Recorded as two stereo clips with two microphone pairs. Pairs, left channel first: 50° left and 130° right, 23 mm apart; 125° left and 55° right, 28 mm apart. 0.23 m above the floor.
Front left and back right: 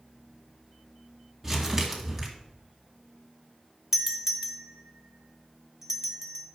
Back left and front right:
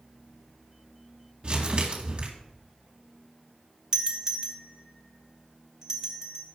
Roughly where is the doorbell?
Right.